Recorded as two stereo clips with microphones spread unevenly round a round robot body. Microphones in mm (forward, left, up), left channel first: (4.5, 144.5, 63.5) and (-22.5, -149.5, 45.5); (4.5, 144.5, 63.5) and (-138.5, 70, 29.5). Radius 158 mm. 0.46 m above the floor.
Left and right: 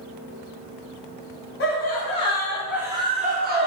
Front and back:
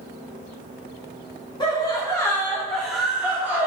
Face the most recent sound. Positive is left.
turn(degrees=-100)